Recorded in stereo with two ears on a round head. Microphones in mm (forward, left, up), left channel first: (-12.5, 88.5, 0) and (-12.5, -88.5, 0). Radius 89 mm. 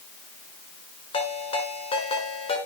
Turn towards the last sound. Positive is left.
turn(degrees=30)  # may be behind; listen again after turning